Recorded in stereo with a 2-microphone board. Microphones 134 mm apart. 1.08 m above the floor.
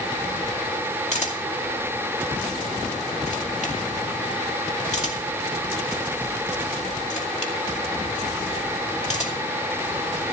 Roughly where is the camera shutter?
Left.